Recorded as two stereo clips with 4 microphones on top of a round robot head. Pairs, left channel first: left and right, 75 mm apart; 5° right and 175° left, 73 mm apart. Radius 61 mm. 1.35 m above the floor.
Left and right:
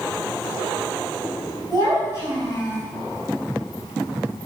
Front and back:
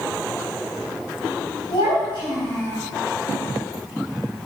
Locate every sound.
1.7 s a child speaking: 45° right, 6 m